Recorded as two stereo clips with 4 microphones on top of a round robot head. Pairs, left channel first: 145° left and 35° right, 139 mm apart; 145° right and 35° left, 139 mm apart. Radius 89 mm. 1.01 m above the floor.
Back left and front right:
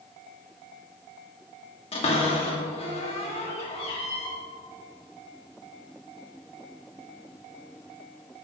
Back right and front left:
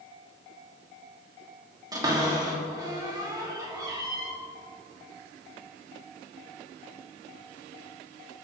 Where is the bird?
I don't hear a bird.